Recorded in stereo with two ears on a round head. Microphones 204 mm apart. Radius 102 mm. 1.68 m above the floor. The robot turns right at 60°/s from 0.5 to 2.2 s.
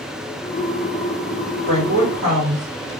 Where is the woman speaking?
105° right, 1.5 m; by 2.9 s 70° right, 1.5 m.